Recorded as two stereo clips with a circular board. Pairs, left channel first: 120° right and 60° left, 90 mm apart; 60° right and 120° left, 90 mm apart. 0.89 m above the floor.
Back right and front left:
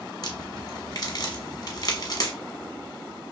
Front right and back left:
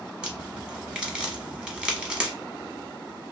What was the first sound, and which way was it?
A crack, 160° right.